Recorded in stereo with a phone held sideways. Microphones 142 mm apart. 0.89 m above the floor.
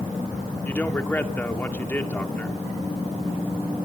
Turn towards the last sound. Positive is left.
turn(degrees=15)  # may be behind; listen again after turning